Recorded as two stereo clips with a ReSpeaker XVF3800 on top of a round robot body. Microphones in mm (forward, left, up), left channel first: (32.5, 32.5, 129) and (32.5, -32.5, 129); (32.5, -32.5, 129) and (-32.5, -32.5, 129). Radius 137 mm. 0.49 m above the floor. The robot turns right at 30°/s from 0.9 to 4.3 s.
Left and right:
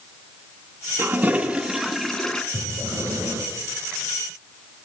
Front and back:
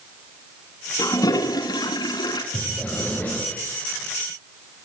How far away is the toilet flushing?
About 2 m.